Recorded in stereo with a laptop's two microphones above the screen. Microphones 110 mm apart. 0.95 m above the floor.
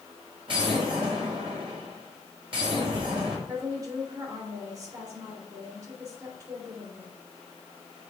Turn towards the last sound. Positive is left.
turn(degrees=-30)  # may be behind; listen again after turning